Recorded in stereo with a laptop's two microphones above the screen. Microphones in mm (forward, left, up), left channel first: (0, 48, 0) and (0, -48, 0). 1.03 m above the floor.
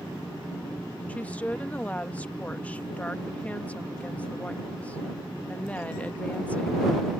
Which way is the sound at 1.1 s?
15° left (ahead or behind).